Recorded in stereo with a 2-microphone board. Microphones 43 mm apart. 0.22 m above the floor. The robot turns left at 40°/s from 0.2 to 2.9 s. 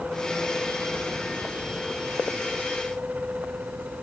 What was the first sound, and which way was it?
Only background noise.